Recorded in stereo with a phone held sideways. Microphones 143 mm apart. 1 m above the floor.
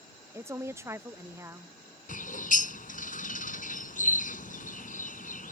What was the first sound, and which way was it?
A woman speaking, 20° right (ahead or behind).